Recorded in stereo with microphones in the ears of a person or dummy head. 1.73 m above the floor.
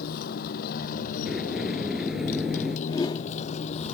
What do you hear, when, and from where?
0.0 s a motorcycle: 45° left (ahead or behind); by 4.0 s 30° left (ahead or behind)
1.3 s a sliding door: 5° right (ahead or behind)
2.9 s a whoosh: 20° left (ahead or behind)